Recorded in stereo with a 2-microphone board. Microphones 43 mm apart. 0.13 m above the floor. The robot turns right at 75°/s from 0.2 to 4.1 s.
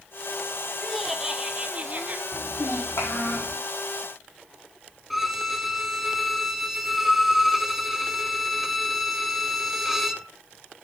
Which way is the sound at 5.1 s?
5° right (ahead or behind).